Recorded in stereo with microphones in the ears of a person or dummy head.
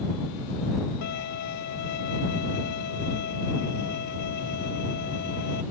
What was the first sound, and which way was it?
A violin, 60° left (ahead or behind).